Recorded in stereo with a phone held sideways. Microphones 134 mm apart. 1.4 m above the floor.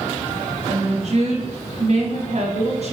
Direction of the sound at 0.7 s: 50° right (ahead or behind).